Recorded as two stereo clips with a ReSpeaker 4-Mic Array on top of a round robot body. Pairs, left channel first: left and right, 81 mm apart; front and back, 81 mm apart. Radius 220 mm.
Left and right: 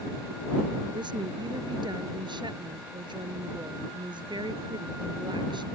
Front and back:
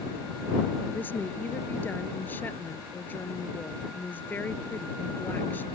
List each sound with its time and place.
0.9 s a woman speaking: 65° right